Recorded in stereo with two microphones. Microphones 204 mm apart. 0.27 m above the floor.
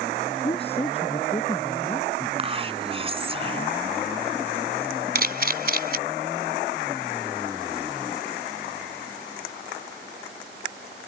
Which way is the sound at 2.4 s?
30° right (ahead or behind).